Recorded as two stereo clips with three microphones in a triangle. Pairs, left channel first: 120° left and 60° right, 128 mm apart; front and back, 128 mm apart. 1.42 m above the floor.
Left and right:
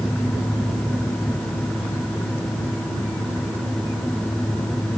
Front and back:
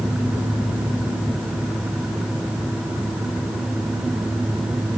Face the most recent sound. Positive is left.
No sound to turn to.